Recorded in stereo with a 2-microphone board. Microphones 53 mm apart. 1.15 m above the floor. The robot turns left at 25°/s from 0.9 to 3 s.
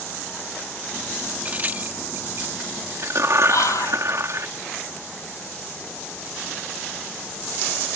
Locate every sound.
1.4 s a crack: 30° right (ahead or behind); by 4.5 s 65° right (ahead or behind)
3.5 s whispering: 75° left (ahead or behind)